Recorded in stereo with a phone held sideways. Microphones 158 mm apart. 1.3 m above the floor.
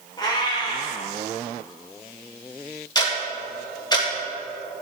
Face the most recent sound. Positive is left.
turn(degrees=25)  # may be behind; listen again after turning